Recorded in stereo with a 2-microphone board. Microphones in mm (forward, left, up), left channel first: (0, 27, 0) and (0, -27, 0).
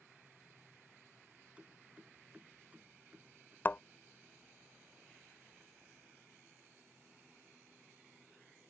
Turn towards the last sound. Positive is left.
turn(degrees=35)  # may be behind; listen again after turning